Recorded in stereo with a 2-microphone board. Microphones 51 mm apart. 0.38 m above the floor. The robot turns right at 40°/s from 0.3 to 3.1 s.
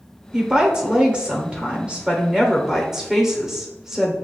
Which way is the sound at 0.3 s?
15° right (ahead or behind).